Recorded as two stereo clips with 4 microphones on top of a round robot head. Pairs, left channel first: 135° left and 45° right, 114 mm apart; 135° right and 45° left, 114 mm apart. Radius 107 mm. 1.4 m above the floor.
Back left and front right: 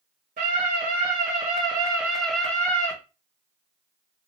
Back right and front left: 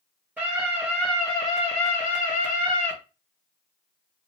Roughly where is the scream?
Ahead right.